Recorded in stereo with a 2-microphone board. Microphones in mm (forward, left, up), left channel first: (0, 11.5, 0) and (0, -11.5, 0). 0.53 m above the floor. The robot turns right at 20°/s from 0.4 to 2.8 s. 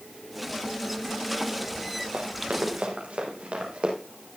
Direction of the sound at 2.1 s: 75° right (ahead or behind).